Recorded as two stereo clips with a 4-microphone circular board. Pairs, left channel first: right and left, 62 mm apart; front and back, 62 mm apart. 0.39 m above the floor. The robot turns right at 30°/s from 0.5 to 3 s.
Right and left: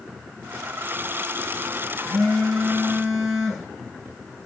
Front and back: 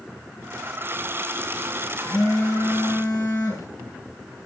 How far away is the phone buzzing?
About 7 m.